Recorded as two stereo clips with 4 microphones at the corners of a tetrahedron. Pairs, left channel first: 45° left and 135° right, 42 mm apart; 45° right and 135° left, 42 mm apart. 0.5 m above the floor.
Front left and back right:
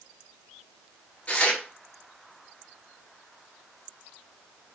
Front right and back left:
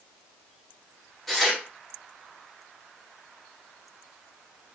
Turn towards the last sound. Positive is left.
turn(degrees=35)